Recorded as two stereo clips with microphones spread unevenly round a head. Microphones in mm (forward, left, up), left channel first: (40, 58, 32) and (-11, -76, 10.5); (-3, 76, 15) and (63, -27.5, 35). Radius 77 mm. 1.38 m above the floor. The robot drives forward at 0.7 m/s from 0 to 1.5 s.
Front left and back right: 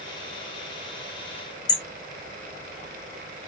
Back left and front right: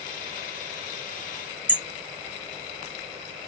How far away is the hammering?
About 1.2 m.